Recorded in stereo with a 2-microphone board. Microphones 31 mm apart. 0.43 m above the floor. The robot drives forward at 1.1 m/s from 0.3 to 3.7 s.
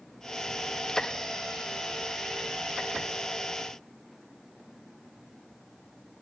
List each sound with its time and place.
Only background noise.